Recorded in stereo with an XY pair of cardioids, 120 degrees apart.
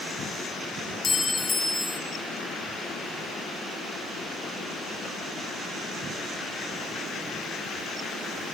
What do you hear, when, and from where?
1.0 s a clink: 25° left, 3 m